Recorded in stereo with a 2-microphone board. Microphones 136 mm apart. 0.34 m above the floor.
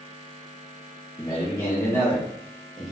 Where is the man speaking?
30° left (ahead or behind), 1.7 m; by 2.9 s 5° right (ahead or behind), 1.3 m.